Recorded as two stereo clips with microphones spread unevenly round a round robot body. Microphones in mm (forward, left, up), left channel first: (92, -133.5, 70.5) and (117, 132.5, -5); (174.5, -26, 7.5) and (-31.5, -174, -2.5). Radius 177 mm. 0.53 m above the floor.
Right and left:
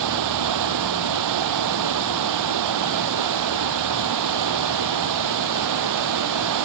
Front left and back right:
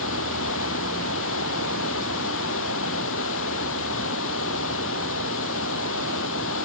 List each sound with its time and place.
0.0 s running water: 95° left